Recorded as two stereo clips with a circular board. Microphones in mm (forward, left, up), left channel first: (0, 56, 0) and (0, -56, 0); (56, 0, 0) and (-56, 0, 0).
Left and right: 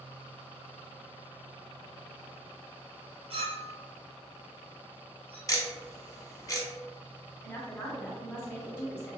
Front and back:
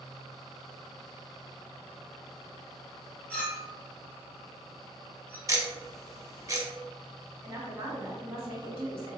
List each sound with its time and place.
3.3 s a clink: 80° right, 1.1 m
5.5 s ticking: 135° left, 0.7 m
7.4 s a woman speaking: 140° left, 1.3 m